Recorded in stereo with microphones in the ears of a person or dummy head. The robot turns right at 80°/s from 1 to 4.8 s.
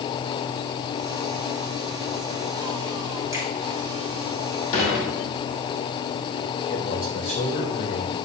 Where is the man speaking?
55° left (ahead or behind), 3 m.